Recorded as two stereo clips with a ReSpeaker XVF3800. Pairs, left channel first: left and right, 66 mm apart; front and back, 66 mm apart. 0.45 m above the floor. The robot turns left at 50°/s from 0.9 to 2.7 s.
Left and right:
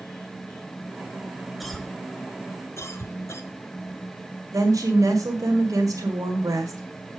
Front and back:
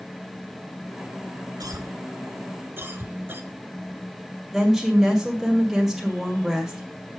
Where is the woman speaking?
95° right, 2 m.